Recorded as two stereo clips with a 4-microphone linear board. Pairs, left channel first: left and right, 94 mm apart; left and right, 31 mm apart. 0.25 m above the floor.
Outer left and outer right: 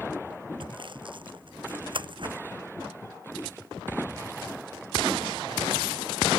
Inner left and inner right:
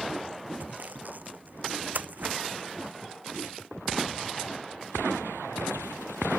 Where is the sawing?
60° right (ahead or behind).